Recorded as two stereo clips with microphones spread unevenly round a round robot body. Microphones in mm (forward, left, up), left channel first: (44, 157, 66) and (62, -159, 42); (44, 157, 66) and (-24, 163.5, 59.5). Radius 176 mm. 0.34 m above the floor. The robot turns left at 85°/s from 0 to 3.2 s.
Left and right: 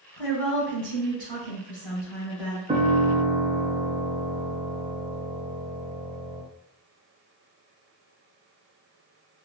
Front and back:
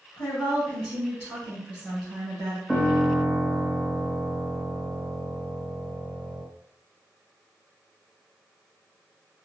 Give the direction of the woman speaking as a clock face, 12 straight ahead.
11 o'clock.